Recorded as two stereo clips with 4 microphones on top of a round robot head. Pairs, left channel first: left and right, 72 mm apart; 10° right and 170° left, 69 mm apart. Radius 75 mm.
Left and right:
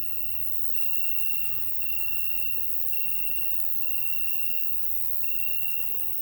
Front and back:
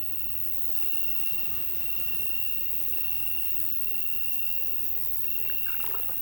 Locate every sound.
0.0 s an insect: 160° right, 1.1 m